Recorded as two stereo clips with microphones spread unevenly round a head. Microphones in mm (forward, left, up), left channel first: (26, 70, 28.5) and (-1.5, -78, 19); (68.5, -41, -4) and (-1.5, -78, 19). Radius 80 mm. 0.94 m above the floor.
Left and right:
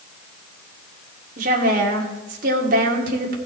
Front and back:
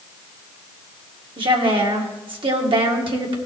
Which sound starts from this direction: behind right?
A woman speaking, at 1.4 s.